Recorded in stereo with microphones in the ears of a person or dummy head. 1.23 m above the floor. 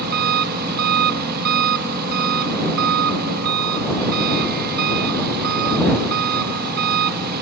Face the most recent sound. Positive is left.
turn(degrees=-50)  # may be behind; listen again after turning